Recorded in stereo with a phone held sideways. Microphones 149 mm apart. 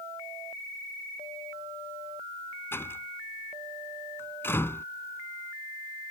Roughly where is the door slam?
Centre.